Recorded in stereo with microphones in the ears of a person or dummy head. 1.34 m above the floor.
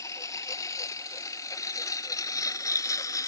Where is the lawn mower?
20° left (ahead or behind).